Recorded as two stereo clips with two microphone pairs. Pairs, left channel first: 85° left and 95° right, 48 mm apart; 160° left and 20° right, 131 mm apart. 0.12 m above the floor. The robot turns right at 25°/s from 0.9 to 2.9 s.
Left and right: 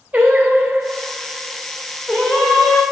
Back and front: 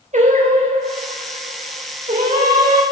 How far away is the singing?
About 3.5 m.